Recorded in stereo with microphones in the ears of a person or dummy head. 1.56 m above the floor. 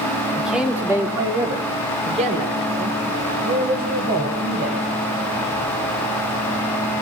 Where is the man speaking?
Centre (ahead or behind), 3 m; by 4.9 s 55° right (ahead or behind), 8.5 m.